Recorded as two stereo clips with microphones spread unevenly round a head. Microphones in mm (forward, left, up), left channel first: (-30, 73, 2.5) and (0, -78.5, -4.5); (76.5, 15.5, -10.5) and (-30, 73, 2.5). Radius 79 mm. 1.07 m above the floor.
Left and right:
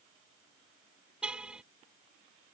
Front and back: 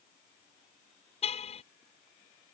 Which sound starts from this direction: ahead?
A car horn, at 1.2 s.